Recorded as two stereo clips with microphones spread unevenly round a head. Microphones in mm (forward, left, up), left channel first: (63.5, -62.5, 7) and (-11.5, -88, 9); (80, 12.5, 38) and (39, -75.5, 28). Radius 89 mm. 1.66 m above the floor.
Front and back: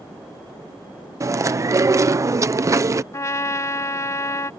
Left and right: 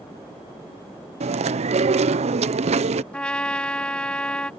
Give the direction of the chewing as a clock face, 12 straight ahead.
4 o'clock.